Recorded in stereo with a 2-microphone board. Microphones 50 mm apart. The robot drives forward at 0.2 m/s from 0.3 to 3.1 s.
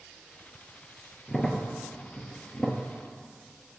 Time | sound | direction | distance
1.3 | a crack | 10° left (ahead or behind) | 1.0 m